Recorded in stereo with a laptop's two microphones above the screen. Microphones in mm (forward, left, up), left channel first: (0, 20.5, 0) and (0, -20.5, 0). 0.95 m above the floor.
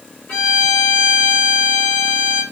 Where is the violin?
30° left (ahead or behind), 2.5 m.